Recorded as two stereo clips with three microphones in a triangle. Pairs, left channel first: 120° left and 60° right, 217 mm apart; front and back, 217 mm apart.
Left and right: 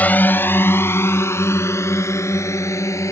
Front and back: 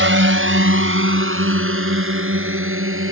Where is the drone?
155° right; by 3.1 s 165° right.